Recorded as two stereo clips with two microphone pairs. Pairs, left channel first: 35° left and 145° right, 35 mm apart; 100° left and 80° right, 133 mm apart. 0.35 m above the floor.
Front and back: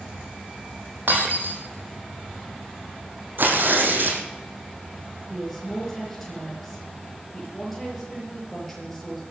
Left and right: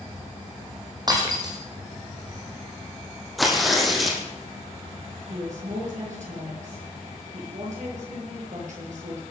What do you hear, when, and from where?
1.1 s breaking glass: 135° right, 4.5 m
3.4 s tearing paper: 170° right, 3 m
5.3 s a woman speaking: 55° right, 8 m